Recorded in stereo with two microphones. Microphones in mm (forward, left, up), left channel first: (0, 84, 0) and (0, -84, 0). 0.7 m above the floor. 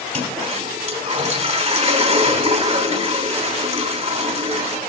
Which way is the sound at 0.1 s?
45° right (ahead or behind).